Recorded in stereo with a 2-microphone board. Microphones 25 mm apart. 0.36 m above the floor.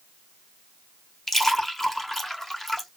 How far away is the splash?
About 1.3 m.